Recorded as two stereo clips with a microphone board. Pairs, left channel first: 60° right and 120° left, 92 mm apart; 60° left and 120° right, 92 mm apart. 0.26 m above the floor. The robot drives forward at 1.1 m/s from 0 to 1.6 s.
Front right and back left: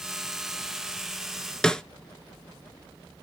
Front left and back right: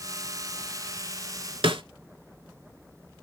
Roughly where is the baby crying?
I don't hear a baby crying.